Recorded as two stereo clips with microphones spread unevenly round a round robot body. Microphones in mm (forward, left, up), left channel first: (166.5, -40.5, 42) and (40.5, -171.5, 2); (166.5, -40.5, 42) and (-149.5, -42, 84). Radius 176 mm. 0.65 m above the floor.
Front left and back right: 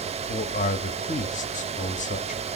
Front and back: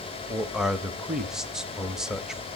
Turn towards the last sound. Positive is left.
turn(degrees=80)